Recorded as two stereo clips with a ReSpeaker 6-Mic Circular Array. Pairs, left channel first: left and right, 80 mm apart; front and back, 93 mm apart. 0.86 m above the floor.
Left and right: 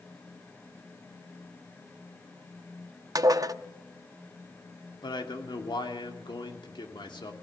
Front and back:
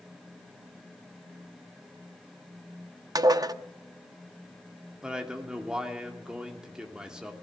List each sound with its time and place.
3.1 s dishes clattering: 130° right, 0.6 m
5.0 s a man speaking: 100° left, 2.5 m